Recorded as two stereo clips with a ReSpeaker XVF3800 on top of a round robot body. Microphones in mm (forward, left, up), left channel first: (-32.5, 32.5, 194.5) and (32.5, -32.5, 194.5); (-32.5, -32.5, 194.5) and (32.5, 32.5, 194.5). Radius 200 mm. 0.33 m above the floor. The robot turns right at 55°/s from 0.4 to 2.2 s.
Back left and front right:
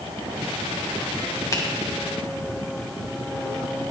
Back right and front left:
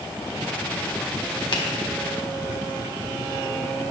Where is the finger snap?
170° right, 2.5 m; by 1.6 s 165° right, 2.5 m.